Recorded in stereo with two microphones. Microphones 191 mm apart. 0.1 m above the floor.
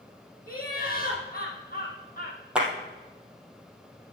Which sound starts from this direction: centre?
A clap, at 2.5 s.